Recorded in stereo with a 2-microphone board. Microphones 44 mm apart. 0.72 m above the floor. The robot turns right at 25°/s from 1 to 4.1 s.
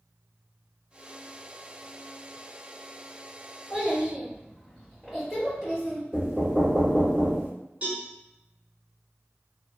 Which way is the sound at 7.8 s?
30° right (ahead or behind).